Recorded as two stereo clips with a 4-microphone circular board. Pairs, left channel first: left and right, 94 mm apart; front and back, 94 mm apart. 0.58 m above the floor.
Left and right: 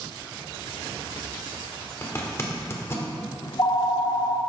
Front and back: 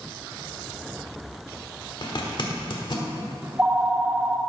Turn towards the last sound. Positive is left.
turn(degrees=115)